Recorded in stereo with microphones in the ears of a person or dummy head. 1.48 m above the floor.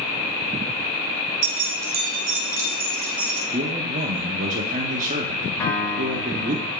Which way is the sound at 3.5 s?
40° right (ahead or behind).